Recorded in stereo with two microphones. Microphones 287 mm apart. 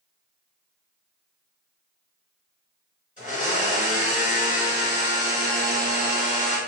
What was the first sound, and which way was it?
A blender, 25° left (ahead or behind).